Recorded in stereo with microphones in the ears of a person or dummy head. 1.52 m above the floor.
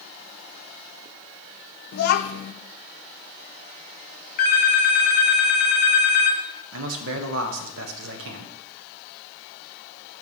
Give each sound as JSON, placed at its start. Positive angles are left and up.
{"t": 1.9, "sound": "a child speaking", "side_deg": 55, "distance_m": 0.7}
{"t": 4.4, "sound": "a phone ringing", "side_deg": 45, "distance_m": 0.9}
{"t": 6.7, "sound": "a man speaking", "side_deg": -75, "distance_m": 1.1}